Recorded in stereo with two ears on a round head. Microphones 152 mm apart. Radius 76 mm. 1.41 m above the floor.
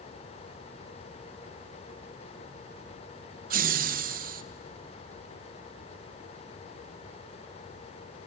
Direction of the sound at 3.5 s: 55° right (ahead or behind).